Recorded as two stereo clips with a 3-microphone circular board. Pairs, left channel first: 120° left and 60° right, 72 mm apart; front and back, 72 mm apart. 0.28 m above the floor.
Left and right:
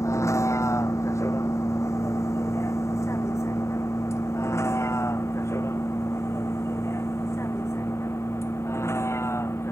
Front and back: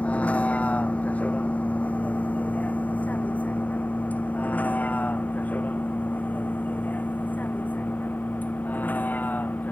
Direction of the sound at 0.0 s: 70° left.